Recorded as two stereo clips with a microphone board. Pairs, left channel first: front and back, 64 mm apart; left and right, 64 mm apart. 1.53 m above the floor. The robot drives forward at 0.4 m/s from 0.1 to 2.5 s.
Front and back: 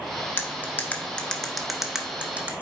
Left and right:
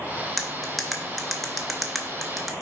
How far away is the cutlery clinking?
About 0.9 m.